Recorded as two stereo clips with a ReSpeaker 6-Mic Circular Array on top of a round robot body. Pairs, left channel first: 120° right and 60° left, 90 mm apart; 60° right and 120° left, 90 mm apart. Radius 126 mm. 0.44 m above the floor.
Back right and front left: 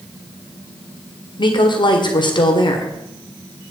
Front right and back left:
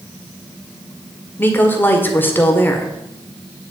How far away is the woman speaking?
About 1.9 m.